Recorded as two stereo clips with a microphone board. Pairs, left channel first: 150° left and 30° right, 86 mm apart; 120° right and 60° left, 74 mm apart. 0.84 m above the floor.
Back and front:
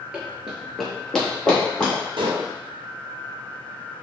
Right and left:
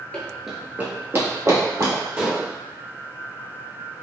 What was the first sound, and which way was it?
Running footsteps, 75° right.